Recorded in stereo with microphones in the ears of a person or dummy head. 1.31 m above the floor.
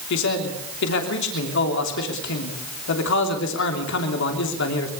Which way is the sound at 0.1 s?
70° left (ahead or behind).